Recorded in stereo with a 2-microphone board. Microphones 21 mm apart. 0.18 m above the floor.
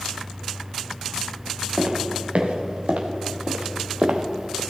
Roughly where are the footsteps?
Right.